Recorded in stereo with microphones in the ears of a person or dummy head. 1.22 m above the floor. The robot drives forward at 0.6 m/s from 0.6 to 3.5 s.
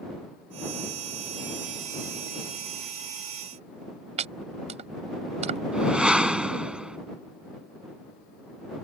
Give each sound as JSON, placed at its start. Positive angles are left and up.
{"t": 4.2, "sound": "chopping", "side_deg": -40}
{"t": 5.7, "sound": "a whoosh", "side_deg": 0}